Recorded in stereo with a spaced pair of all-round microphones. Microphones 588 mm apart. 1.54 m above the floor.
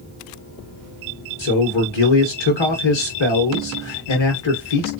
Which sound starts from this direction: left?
A man speaking, at 1.4 s.